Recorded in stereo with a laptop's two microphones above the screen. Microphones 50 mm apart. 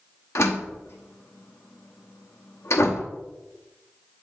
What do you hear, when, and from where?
0.3 s a door slam: 65° left (ahead or behind), 0.9 m